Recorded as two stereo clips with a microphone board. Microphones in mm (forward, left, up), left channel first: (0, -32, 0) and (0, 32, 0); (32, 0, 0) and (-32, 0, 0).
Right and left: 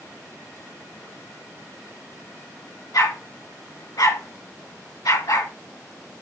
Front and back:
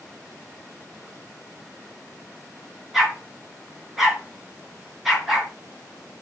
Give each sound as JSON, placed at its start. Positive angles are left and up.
{"t": 2.9, "sound": "a dog barking", "azimuth_deg": -95, "distance_m": 6.0}